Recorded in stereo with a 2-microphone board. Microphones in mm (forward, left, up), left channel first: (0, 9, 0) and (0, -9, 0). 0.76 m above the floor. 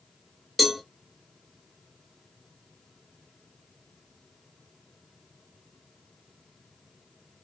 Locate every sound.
0.6 s a cowbell: centre (ahead or behind), 1.0 m